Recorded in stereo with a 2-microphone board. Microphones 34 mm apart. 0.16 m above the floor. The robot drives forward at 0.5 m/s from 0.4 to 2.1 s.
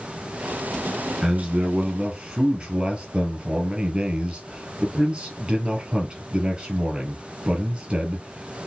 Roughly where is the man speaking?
Right.